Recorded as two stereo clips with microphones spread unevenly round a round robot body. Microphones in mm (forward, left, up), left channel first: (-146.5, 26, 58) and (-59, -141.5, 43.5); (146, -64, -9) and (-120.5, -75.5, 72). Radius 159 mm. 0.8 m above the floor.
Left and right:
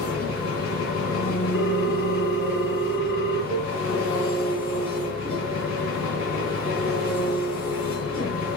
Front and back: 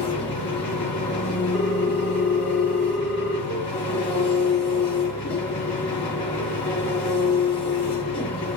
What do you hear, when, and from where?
0.0 s an engine running: 80° left, 3.5 m
1.5 s a ringtone: 90° left, 5 m
3.5 s a cowbell: 125° left, 5.5 m